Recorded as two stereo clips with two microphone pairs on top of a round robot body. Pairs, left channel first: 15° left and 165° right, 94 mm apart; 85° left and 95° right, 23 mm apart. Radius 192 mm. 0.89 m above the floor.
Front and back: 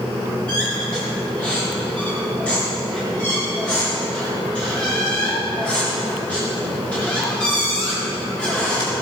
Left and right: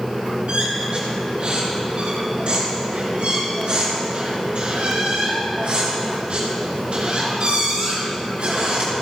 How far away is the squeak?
About 4 m.